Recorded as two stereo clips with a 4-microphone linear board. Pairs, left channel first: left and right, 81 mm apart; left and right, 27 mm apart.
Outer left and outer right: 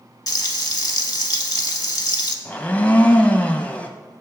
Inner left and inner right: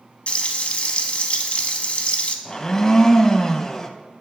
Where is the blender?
20° left (ahead or behind), 0.6 m.